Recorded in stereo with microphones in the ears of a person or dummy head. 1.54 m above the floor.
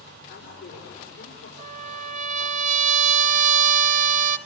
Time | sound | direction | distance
0.3 | a woman speaking | 60° left (ahead or behind) | 6 m
1.6 | a trumpet | 35° right (ahead or behind) | 1.1 m